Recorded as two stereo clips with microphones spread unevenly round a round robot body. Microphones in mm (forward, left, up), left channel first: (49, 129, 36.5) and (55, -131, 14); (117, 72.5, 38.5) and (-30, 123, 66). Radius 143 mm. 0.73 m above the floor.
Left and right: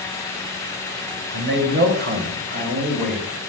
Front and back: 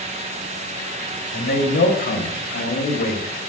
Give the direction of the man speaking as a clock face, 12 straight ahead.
2 o'clock.